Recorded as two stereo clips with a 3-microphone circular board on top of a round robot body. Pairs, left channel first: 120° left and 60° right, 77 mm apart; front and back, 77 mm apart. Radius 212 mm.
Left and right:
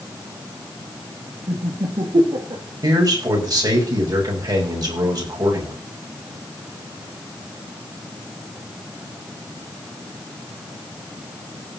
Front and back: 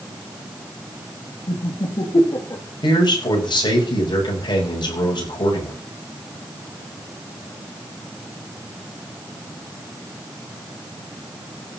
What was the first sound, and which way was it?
Laughter, 25° right.